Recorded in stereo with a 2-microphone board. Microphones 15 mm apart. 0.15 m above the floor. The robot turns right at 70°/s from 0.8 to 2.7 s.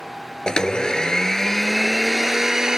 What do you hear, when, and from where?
0.5 s a blender: 105° left, 0.6 m; by 2.8 s 125° right, 0.6 m